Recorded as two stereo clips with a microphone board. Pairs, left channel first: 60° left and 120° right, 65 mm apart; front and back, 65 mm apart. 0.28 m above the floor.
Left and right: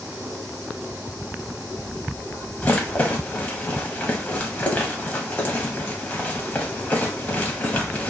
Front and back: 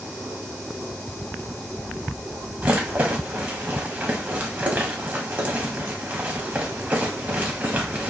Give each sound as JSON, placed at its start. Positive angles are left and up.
{"t": 2.6, "sound": "a rattle", "azimuth_deg": 120, "distance_m": 0.6}